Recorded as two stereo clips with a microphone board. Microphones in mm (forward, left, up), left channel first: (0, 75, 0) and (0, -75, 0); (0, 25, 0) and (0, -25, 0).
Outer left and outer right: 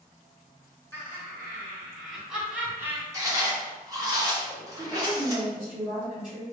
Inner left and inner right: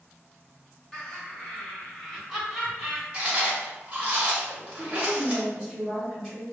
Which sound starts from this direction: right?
Chewing, at 3.1 s.